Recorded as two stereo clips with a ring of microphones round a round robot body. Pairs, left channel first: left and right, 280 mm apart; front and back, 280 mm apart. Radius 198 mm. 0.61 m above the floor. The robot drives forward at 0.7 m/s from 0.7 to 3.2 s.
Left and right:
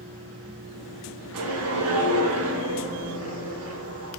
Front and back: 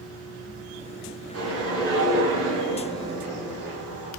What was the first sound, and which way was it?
A whoosh, 120° right.